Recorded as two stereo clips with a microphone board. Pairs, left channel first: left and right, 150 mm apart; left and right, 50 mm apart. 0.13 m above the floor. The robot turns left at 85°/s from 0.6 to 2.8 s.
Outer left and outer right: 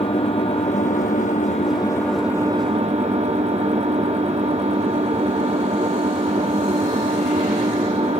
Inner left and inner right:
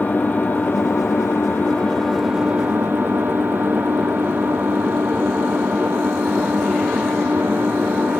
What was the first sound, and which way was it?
An engine running, 135° left.